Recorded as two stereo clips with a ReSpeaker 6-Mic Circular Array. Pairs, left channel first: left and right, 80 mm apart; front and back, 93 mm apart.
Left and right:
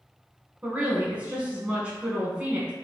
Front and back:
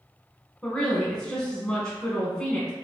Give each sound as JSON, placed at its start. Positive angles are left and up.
{"t": 0.6, "sound": "a woman speaking", "azimuth_deg": -60, "distance_m": 1.1}